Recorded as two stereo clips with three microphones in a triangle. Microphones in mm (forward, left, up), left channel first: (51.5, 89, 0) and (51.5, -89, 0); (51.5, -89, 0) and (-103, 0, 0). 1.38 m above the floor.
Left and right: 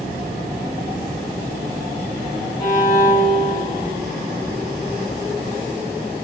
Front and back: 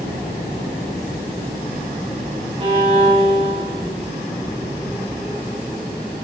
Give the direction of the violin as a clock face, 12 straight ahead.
8 o'clock.